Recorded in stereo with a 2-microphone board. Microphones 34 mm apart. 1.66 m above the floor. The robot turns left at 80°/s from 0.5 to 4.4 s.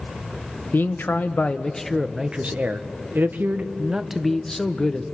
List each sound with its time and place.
0.7 s a man speaking: 100° left, 1.1 m; by 5.0 s 165° left, 1.1 m